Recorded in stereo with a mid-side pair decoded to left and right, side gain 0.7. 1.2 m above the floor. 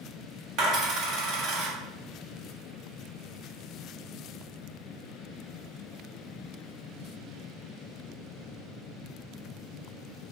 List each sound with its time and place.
0.6 s a dropped coin: 50° right, 1.6 m